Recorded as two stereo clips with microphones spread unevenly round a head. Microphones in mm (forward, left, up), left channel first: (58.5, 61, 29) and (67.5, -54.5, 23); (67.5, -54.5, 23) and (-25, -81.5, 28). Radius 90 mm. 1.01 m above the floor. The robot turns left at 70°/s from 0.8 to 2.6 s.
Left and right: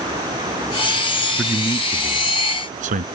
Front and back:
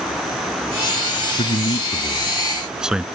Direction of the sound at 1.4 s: 5° left.